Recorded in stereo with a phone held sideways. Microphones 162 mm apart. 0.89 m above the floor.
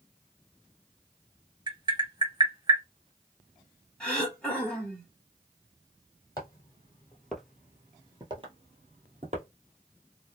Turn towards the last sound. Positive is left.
turn(degrees=-45)  # may be behind; listen again after turning